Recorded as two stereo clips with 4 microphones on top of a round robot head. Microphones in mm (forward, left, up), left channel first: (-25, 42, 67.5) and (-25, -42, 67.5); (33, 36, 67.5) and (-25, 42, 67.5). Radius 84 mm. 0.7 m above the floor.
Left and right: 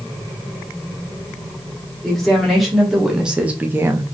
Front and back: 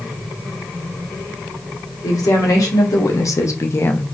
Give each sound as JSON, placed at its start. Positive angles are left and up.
{"t": 2.0, "sound": "a woman speaking", "azimuth_deg": 5, "distance_m": 1.6}